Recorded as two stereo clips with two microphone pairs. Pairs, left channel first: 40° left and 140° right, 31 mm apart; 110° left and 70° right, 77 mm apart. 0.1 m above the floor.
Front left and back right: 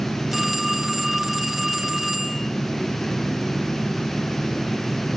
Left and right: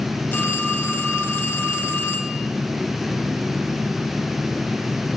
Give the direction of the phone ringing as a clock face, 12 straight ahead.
7 o'clock.